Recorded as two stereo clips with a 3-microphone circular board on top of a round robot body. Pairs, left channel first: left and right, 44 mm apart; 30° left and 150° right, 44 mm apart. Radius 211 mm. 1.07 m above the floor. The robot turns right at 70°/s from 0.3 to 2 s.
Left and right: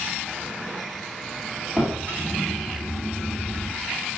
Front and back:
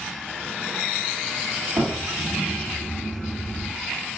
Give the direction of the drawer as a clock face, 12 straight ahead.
5 o'clock.